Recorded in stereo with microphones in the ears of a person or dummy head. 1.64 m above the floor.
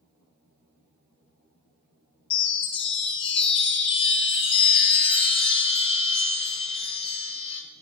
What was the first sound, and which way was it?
A chime, 30° left (ahead or behind).